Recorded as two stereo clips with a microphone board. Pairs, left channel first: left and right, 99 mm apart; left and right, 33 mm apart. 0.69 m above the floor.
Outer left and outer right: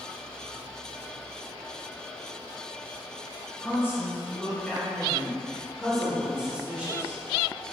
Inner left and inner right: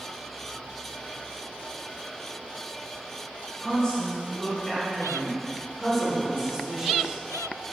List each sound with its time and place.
3.6 s a woman speaking: 30° left (ahead or behind), 3 m; by 7.2 s 20° right (ahead or behind), 2.5 m